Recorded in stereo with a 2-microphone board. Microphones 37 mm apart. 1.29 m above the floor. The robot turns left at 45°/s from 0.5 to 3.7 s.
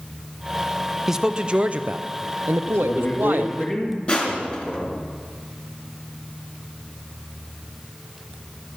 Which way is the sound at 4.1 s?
35° left (ahead or behind).